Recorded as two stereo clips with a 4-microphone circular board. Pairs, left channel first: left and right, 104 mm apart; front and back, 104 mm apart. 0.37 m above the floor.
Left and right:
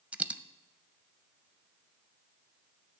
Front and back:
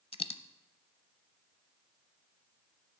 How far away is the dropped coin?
About 0.6 m.